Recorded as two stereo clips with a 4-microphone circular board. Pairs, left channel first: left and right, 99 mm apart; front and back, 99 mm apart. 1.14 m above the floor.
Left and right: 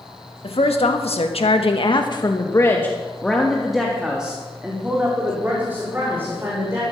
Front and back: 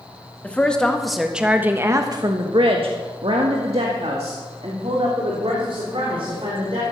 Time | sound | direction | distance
0.4 | a woman speaking | 75° left | 1.8 m